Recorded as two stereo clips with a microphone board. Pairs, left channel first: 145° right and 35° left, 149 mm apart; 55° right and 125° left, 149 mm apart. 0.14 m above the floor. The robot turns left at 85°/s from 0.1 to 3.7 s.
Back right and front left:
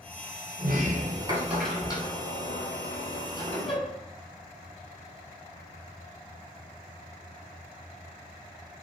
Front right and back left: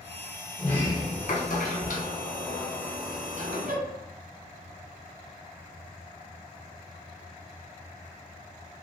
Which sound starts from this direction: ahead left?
A sliding door, at 0.6 s.